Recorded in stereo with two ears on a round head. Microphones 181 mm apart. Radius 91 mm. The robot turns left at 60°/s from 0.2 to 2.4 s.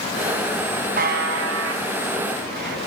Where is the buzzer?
45° right (ahead or behind), 3.5 m; by 2.8 s 50° right (ahead or behind), 3.5 m.